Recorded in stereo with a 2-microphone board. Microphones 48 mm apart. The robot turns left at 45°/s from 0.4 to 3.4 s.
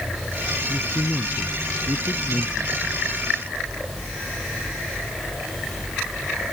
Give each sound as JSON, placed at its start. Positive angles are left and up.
{"t": 0.7, "sound": "a man speaking", "azimuth_deg": 135}